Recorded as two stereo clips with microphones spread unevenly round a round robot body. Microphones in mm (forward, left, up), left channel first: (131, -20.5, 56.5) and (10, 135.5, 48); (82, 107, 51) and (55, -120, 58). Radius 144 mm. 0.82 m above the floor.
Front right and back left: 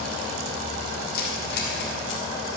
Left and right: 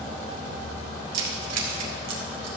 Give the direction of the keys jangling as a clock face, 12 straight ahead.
4 o'clock.